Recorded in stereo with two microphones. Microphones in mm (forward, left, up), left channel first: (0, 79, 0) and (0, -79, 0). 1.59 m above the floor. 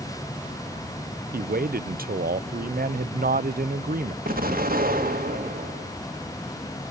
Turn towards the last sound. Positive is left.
turn(degrees=-70)  # may be behind; listen again after turning